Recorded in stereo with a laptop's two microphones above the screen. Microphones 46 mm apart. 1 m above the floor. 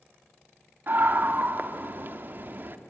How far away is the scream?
About 2 m.